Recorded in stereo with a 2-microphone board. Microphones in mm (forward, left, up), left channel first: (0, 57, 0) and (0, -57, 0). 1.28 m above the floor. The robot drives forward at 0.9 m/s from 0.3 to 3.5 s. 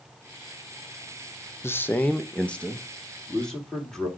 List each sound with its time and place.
1.6 s a man speaking: 20° left (ahead or behind), 0.6 m; by 4.1 s 5° left (ahead or behind), 2.5 m